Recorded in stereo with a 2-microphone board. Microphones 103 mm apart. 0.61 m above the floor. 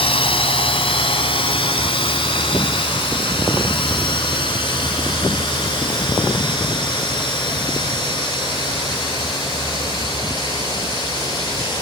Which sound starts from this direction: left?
A drone, at 0.0 s.